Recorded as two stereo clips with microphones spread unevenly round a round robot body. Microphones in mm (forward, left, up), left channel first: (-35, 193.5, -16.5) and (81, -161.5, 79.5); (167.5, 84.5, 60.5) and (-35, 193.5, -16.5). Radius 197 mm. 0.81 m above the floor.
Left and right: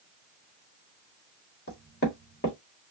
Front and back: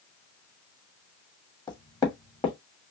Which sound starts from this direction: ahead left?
Knocking, at 1.7 s.